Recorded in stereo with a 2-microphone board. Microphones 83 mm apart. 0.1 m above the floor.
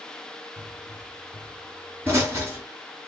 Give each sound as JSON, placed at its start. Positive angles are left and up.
{"t": 0.6, "sound": "a pop", "side_deg": -25, "distance_m": 1.5}